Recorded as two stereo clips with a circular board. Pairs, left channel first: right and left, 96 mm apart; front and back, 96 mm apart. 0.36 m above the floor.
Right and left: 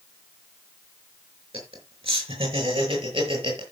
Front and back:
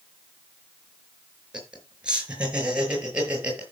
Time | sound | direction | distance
1.5 | laughter | 100° left | 5.5 m